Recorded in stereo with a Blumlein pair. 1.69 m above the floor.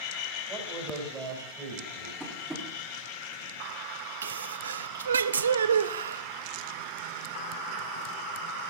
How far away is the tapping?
About 3 m.